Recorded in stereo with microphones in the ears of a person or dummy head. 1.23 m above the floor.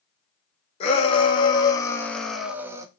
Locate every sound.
0.8 s a shout: 35° left (ahead or behind), 1.5 m; by 2.9 s 20° right (ahead or behind), 0.8 m